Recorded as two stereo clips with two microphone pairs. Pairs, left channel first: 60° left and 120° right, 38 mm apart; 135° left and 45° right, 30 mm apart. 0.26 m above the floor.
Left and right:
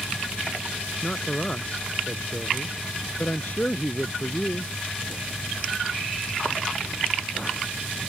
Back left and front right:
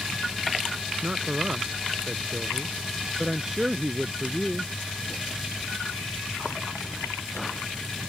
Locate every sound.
1.0 s a man speaking: straight ahead; by 4.7 s 25° left